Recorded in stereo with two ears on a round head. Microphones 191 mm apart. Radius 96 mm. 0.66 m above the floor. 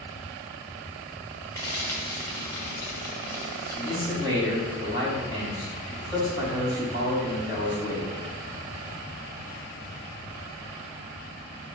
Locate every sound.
1.6 s frying: 15° left (ahead or behind), 2.5 m
3.8 s a man speaking: 20° right (ahead or behind), 3 m